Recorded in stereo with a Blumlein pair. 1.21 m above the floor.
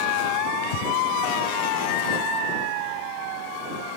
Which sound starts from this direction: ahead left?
Breathing, at 0.6 s.